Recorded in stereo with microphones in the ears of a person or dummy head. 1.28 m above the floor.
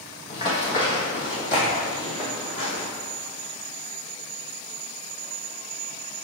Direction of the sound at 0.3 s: 40° left (ahead or behind).